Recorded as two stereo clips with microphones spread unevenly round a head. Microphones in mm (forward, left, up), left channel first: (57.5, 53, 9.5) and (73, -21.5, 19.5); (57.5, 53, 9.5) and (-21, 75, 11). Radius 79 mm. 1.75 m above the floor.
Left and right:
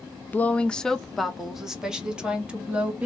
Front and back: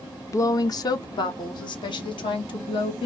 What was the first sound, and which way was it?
A woman speaking, 35° left.